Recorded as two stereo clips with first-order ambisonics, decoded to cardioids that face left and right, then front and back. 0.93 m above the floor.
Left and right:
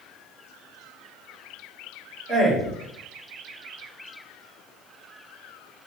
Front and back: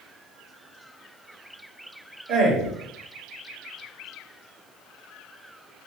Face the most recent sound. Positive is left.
turn(degrees=-150)